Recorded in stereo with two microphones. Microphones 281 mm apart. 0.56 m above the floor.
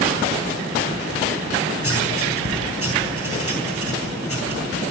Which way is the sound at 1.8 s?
55° left (ahead or behind).